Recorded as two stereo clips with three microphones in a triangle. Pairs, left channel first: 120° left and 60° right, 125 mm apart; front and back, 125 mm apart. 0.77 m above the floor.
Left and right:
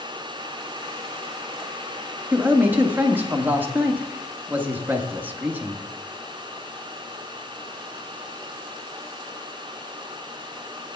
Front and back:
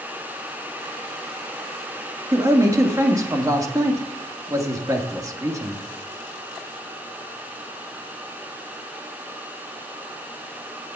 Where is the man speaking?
130° right, 1.5 m.